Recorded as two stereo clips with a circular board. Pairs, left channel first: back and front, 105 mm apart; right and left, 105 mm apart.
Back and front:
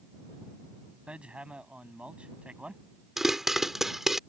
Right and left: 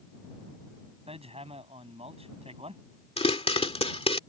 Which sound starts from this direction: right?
A pop, at 3.2 s.